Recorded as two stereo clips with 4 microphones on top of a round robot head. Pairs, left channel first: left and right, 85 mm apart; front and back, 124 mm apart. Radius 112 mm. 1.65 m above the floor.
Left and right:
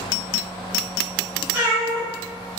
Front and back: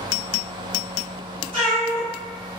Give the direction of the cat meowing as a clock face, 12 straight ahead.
2 o'clock.